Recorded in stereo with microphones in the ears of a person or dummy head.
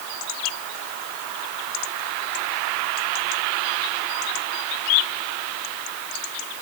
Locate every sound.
Only background noise.